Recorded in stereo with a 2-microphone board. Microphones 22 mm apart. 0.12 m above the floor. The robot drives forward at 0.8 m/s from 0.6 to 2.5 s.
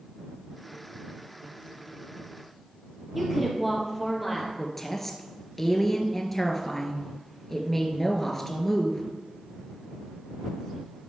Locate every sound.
3.1 s a woman speaking: 5° right (ahead or behind), 3.5 m
4.6 s a woman speaking: 15° left (ahead or behind), 1.7 m